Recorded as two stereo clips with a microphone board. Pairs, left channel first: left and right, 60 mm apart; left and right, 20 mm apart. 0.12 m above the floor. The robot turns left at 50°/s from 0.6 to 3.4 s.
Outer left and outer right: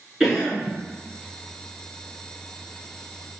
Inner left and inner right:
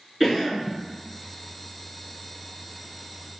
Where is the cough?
5° right (ahead or behind), 1.2 m; by 0.7 s centre (ahead or behind), 1.2 m.